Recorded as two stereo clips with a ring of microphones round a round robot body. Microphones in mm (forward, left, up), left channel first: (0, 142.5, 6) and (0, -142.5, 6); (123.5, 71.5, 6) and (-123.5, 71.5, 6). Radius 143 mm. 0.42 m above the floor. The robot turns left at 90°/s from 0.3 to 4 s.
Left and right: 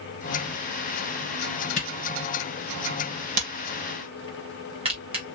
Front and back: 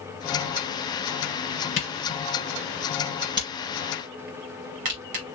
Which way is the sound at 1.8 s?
40° left.